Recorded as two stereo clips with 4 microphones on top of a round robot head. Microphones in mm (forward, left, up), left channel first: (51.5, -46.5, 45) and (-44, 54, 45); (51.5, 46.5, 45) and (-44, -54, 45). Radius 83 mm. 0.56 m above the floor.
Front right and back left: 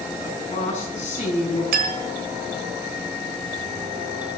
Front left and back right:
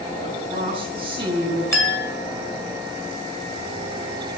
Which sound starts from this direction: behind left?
A clink, at 1.7 s.